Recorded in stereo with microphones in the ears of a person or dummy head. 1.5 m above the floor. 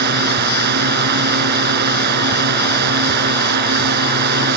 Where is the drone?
55° right (ahead or behind).